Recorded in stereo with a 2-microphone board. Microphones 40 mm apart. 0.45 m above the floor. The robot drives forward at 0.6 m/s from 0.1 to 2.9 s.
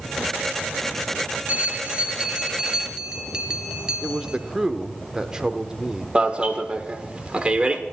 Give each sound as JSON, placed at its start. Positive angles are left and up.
{"t": 1.5, "sound": "a bell", "side_deg": -40, "distance_m": 0.8}
{"t": 4.0, "sound": "a man speaking", "side_deg": -15, "distance_m": 0.9}
{"t": 6.2, "sound": "an alarm", "side_deg": -25, "distance_m": 1.3}